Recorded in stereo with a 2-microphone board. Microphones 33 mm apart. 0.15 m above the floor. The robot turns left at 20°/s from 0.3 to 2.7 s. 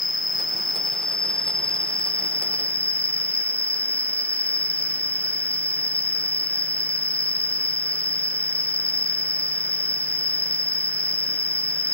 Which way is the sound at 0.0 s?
Straight behind.